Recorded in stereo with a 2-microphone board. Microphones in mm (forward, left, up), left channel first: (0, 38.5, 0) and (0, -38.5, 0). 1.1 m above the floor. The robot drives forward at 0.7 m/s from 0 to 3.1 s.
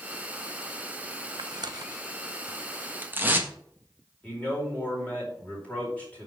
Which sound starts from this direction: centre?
A man speaking, at 4.2 s.